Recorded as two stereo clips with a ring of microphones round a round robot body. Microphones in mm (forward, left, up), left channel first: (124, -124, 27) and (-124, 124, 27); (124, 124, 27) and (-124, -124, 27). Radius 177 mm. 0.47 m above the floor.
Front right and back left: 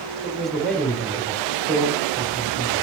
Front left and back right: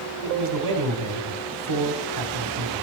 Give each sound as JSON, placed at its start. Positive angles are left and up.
{"t": 0.2, "sound": "a man speaking", "azimuth_deg": -135, "distance_m": 2.0}